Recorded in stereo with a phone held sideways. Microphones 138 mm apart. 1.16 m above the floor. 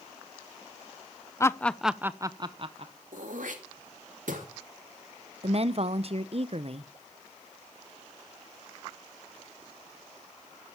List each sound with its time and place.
1.4 s laughter: 20° left (ahead or behind), 0.6 m; by 2.9 s 50° right (ahead or behind), 0.8 m
3.1 s throat clearing: 75° right (ahead or behind), 2.5 m
5.4 s a woman speaking: 50° right (ahead or behind), 0.6 m